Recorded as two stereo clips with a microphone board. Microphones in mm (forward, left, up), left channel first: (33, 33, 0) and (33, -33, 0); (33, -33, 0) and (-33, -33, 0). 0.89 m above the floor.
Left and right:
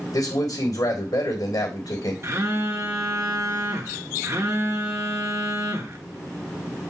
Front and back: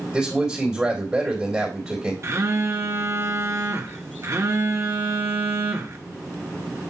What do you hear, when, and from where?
0.1 s a man speaking: 100° left, 3 m
2.2 s a phone buzzing: 135° right, 1.1 m